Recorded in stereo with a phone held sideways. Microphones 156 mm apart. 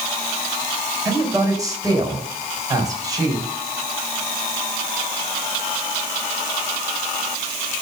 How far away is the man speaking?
About 4 m.